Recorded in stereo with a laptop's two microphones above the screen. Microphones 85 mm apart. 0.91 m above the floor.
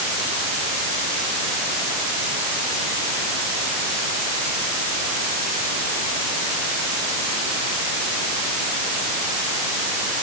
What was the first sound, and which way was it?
Only background noise.